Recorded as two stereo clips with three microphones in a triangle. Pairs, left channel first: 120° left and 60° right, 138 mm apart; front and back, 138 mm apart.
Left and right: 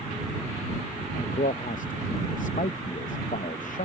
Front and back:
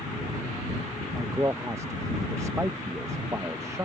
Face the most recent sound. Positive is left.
turn(degrees=110)